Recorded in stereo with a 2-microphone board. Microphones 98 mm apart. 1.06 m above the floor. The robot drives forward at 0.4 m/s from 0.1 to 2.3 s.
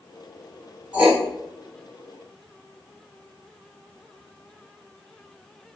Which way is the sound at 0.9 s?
15° right (ahead or behind).